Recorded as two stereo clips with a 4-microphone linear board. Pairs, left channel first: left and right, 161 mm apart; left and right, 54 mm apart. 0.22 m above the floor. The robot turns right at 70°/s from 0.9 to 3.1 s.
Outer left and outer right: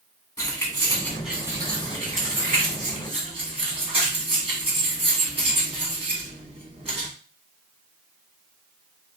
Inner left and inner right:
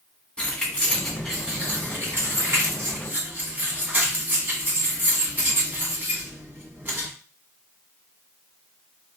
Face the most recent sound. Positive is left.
turn(degrees=-35)  # may be behind; listen again after turning